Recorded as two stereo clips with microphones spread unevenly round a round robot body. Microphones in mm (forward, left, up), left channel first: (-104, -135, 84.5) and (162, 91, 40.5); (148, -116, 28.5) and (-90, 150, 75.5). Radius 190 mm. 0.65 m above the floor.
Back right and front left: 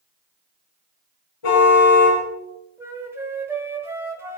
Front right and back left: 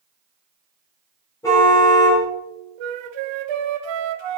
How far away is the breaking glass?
I don't hear breaking glass.